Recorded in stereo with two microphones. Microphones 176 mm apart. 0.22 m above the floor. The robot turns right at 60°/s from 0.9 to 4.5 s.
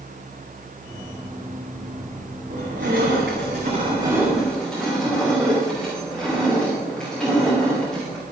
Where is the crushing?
115° right, 9 m; by 8.2 s 5° left, 9 m.